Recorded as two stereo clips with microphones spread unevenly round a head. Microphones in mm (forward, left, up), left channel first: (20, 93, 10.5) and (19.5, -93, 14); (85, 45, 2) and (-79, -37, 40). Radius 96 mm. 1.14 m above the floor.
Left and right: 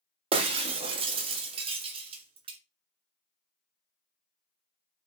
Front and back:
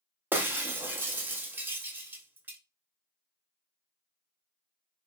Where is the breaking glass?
110° right, 0.5 m.